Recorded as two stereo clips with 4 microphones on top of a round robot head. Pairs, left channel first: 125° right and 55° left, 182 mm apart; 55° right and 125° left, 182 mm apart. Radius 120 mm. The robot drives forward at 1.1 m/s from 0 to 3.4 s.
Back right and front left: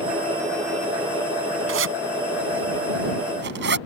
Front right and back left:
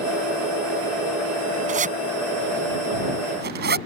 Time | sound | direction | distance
1.7 | a zipper | 70° left | ?